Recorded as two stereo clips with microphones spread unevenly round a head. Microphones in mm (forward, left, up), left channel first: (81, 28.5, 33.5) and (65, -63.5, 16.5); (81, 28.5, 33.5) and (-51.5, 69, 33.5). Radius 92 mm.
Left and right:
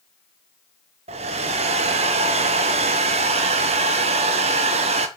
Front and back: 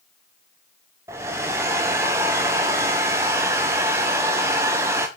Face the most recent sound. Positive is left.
turn(degrees=-120)